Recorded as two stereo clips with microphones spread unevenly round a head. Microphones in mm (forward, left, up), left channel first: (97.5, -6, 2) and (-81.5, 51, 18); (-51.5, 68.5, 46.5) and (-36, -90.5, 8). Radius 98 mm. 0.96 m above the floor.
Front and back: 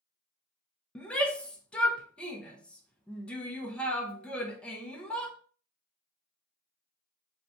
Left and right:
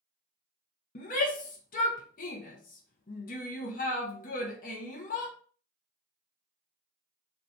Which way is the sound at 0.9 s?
60° left.